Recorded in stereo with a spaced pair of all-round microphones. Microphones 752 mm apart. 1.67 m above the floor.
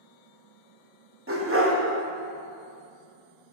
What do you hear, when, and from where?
1.3 s a dog barking: 15° right (ahead or behind), 1.1 m